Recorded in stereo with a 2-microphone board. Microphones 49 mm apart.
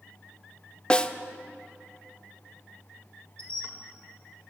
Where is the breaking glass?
I don't hear breaking glass.